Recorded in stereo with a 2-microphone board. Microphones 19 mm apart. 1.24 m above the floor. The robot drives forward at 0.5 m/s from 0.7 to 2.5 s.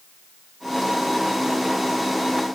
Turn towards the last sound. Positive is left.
No sound to turn to.